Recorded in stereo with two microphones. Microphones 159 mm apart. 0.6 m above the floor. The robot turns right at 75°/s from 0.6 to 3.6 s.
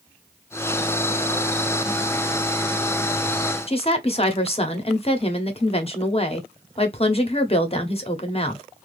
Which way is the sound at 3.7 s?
40° left (ahead or behind).